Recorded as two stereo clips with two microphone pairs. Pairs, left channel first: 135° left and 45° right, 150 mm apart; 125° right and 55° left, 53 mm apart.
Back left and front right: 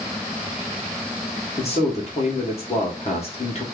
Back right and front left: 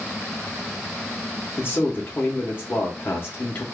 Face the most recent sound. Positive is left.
turn(degrees=-175)